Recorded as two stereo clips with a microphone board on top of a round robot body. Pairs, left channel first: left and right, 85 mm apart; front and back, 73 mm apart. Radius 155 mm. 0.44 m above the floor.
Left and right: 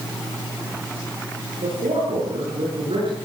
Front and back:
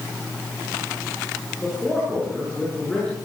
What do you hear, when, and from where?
1.6 s a man speaking: 85° right, 9 m; by 3.1 s 80° right, 9.5 m